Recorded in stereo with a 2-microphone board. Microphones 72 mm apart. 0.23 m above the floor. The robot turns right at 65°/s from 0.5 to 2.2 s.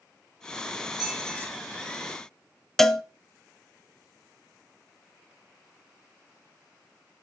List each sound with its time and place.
1.0 s a squeak: 65° right, 7.5 m; by 1.5 s 30° right, 7.5 m
2.8 s a cowbell: 5° left (ahead or behind), 0.6 m